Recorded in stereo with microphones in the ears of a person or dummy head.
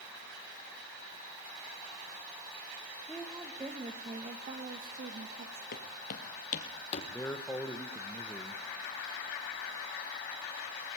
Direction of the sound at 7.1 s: 10° left (ahead or behind).